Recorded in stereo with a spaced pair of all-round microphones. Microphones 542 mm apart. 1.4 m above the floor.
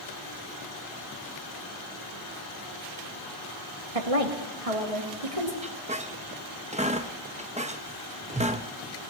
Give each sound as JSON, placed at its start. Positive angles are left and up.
{"t": 4.0, "sound": "a woman speaking", "side_deg": -80, "distance_m": 1.7}
{"t": 5.6, "sound": "a squeak", "side_deg": -15, "distance_m": 0.7}